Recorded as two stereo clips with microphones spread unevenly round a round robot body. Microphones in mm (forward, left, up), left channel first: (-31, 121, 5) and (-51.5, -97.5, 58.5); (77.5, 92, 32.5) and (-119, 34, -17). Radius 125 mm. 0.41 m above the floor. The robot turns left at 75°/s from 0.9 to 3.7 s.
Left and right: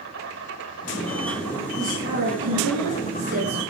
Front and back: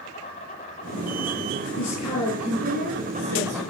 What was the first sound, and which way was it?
An insect, 50° right.